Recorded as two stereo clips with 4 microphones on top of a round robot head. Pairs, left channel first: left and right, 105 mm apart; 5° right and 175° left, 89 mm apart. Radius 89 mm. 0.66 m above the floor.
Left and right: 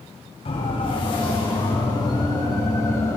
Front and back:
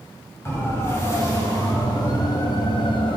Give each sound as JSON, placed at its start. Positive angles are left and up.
{"t": 0.5, "sound": "a siren", "azimuth_deg": 55, "distance_m": 6.0}